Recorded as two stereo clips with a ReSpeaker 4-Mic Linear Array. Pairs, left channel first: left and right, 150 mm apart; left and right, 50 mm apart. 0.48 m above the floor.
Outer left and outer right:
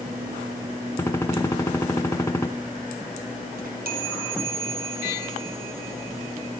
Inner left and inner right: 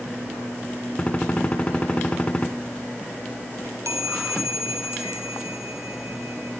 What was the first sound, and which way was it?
A gunshot, 15° left (ahead or behind).